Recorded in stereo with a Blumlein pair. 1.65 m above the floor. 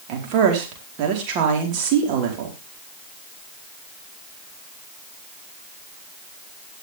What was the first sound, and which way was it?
A woman speaking, 40° right.